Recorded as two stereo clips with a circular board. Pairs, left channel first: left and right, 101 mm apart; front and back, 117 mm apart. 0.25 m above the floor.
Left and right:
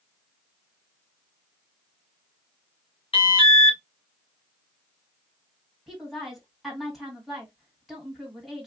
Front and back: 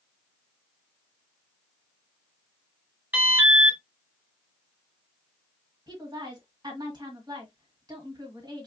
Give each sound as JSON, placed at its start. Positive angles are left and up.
{"t": 3.1, "sound": "an alarm", "azimuth_deg": 110, "distance_m": 2.5}
{"t": 5.9, "sound": "a woman speaking", "azimuth_deg": 180, "distance_m": 1.9}